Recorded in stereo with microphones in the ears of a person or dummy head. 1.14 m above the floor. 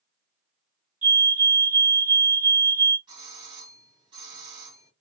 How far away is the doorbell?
About 1.9 m.